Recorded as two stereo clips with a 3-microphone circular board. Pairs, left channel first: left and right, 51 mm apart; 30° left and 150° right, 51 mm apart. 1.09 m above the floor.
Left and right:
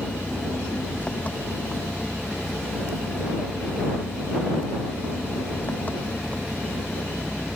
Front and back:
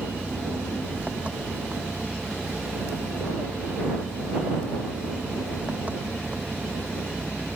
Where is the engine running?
150° left.